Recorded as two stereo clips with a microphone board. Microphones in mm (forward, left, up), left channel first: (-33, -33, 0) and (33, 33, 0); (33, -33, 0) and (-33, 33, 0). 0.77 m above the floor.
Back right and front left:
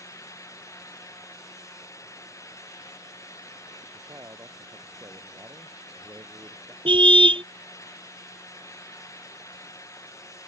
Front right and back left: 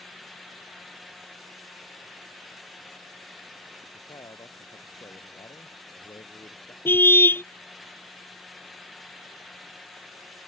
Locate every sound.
3.9 s a man speaking: 10° right
6.8 s a car horn: 20° left